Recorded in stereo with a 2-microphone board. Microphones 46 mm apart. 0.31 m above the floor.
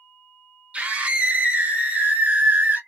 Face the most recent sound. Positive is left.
turn(degrees=-50)  # may be behind; listen again after turning